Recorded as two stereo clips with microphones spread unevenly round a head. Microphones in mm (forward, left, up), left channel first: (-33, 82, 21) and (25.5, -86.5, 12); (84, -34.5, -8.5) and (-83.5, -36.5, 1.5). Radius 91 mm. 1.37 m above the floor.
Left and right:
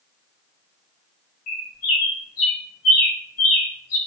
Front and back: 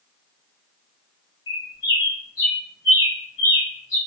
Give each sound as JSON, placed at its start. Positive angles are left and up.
{"t": 1.5, "sound": "a bird", "azimuth_deg": 70, "distance_m": 1.6}